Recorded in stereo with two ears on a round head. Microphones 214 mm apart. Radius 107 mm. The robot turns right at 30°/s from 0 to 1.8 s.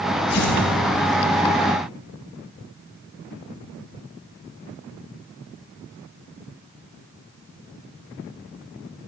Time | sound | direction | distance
0.3 | tearing paper | 80° left | 4 m